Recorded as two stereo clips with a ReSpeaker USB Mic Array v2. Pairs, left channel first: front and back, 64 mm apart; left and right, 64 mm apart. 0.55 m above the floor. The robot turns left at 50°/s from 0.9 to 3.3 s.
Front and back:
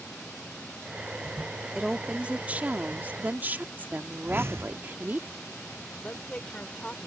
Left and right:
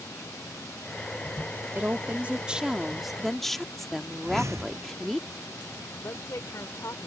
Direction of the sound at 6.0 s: 70° left.